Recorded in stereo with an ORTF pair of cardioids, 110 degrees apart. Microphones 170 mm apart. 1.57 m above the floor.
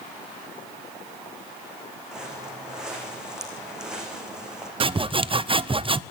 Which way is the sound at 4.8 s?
30° right.